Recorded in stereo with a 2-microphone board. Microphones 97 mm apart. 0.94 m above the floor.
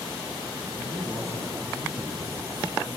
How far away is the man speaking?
About 8.5 m.